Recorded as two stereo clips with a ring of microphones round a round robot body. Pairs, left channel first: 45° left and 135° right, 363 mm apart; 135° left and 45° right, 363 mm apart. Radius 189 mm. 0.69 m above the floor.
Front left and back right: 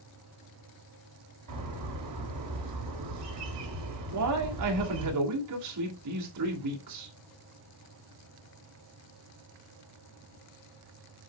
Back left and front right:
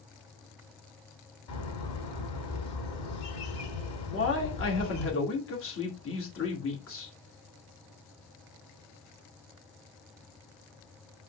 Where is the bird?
Straight behind, 3 m.